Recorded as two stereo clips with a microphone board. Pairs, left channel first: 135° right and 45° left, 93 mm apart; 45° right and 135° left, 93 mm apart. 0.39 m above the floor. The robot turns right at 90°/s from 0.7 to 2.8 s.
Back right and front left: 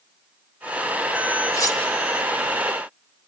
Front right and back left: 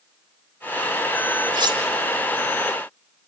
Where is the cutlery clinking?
165° left, 3.5 m; by 1.8 s 170° right, 3.5 m.